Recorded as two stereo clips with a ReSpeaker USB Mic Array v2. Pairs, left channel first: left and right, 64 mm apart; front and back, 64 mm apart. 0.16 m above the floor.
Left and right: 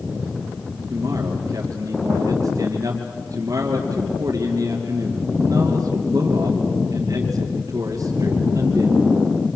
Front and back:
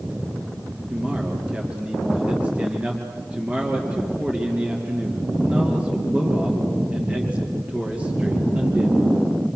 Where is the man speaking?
110° right, 3.5 m.